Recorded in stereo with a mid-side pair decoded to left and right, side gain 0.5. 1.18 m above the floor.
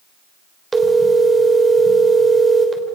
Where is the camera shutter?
I don't hear a camera shutter.